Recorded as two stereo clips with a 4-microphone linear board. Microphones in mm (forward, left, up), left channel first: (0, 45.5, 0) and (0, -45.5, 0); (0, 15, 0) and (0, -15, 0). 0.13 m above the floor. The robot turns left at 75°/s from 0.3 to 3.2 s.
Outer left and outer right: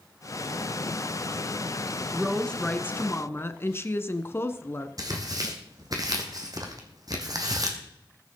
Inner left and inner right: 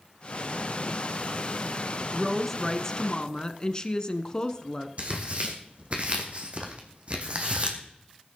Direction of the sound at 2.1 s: 5° right (ahead or behind).